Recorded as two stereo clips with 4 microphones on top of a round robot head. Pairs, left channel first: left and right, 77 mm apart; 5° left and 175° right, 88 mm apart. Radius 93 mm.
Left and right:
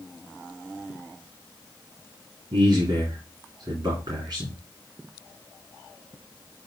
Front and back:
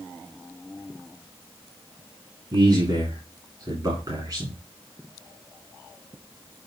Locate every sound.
2.5 s a man speaking: 130° right, 2.5 m